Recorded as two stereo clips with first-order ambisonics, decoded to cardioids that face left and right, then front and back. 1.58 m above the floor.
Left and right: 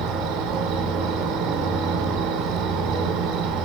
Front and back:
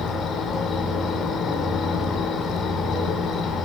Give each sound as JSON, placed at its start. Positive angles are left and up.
{"t": 0.0, "sound": "an insect", "azimuth_deg": -65, "distance_m": 5.5}